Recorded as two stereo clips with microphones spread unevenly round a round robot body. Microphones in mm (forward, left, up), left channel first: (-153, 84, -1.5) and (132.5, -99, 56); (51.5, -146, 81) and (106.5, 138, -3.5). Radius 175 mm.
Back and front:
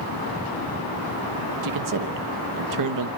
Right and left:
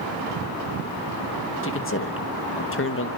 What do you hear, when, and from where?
1.6 s a man speaking: 50° right, 1.2 m